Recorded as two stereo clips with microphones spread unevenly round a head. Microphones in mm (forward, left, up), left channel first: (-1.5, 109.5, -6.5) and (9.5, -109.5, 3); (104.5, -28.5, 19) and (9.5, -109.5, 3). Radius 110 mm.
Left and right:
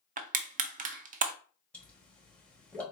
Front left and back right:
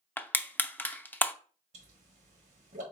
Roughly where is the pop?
Behind.